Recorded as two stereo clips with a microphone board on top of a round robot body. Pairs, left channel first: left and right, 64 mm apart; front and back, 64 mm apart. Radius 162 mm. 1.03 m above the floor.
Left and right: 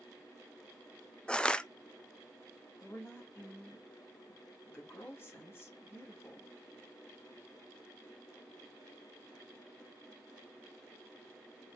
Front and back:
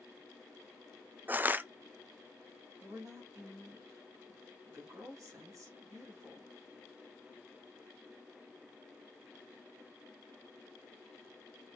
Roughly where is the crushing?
Behind left.